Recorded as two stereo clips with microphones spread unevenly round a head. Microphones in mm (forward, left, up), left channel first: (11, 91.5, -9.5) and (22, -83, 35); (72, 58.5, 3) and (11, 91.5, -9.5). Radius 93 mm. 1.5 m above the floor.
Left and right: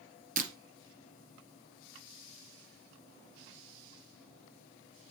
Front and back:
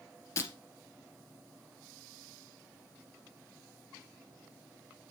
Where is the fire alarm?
I don't hear a fire alarm.